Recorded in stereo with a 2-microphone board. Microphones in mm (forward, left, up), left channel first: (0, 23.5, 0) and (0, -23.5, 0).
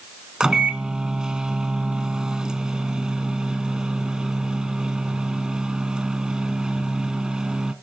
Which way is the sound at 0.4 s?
15° right (ahead or behind).